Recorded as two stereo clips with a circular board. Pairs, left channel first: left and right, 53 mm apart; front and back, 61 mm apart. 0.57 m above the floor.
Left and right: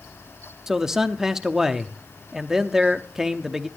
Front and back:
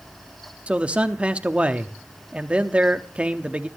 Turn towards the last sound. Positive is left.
turn(degrees=-155)